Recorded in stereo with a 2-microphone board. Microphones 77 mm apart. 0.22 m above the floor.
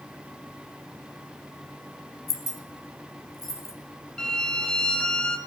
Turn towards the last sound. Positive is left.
turn(degrees=10)  # may be behind; listen again after turning